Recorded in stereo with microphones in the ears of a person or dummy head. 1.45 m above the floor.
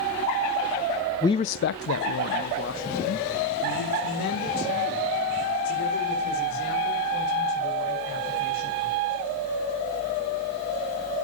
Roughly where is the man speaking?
Centre.